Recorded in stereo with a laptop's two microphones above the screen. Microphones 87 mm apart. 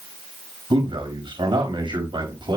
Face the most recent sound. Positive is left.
turn(degrees=-75)  # may be behind; listen again after turning